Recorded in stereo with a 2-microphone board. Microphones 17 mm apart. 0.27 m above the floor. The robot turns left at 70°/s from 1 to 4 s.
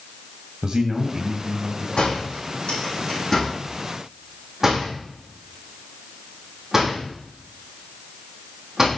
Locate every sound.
0.6 s a man speaking: 95° right, 2.0 m; by 1.9 s 155° right, 2.0 m
2.0 s a door slam: 60° left (ahead or behind), 9.5 m; by 8.9 s 20° right (ahead or behind), 9.5 m